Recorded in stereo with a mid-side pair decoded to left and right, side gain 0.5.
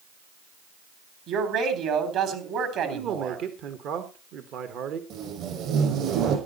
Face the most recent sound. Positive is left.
turn(degrees=-65)